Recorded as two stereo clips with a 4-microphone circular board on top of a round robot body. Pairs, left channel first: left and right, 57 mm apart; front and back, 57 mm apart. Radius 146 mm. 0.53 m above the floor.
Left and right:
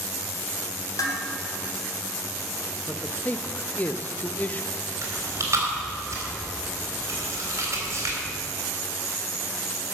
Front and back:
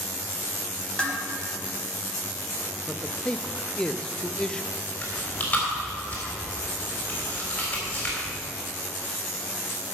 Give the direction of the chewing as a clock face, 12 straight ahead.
2 o'clock.